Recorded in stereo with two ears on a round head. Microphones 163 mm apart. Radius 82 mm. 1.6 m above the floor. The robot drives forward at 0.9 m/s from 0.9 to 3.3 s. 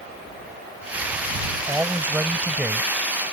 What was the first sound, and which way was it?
A man speaking, 10° right (ahead or behind).